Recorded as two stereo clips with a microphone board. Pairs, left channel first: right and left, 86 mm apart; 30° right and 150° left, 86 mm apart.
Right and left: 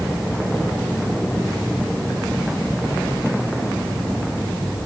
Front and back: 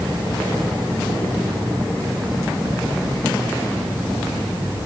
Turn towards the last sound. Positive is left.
No sound to turn to.